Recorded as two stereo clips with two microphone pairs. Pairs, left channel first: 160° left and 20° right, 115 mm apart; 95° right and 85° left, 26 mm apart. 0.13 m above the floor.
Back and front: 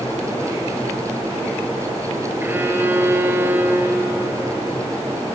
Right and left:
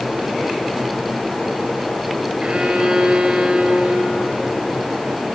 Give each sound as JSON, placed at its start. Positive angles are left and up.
{"t": 2.4, "sound": "a violin", "azimuth_deg": 50, "distance_m": 1.3}